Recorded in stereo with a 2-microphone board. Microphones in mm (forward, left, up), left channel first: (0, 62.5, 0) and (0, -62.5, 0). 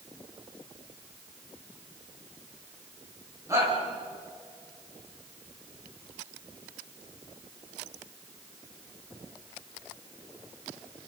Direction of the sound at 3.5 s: 25° right (ahead or behind).